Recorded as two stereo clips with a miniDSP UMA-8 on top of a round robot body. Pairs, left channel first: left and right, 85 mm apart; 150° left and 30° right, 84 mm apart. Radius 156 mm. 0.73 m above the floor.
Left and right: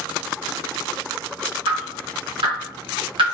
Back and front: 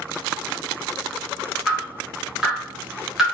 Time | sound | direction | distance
1.7 | dripping | 115° right | 1.1 m